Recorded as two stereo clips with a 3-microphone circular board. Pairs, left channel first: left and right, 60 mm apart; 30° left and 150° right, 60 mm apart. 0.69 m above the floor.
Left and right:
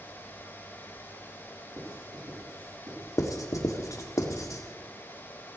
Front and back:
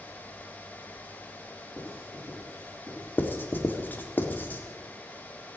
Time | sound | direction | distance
1.8 | writing | 100° right | 8 m
3.2 | writing | 85° left | 1.6 m